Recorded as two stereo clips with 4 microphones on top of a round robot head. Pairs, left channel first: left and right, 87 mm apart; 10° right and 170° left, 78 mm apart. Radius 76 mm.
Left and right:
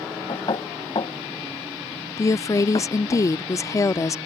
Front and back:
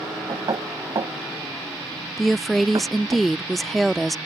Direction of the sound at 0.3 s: 130° left.